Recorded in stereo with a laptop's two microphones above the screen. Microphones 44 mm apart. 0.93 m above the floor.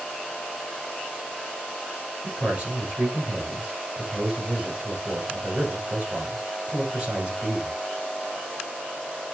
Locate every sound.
2.2 s a man speaking: 25° right (ahead or behind), 6.5 m